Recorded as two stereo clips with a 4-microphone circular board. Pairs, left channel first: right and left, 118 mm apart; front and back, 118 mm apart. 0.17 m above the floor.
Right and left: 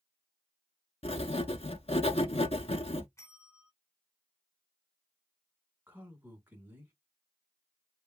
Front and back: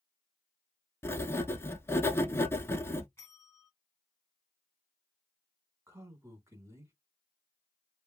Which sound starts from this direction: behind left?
A man speaking, at 5.9 s.